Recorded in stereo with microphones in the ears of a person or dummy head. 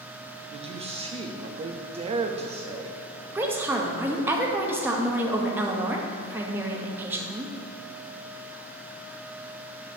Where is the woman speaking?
15° right (ahead or behind), 0.9 m.